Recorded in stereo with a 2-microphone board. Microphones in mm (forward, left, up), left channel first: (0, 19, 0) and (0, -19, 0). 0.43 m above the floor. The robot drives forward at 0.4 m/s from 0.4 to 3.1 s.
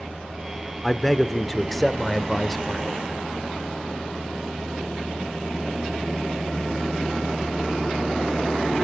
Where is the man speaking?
5° left (ahead or behind), 0.9 m.